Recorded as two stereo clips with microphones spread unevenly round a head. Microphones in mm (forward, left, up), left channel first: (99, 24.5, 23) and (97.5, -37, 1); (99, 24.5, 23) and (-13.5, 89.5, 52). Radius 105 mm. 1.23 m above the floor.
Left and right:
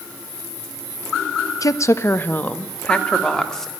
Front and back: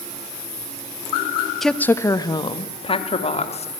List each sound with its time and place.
1.6 s a woman speaking: 55° left, 1.3 m; by 3.7 s 5° left, 3.5 m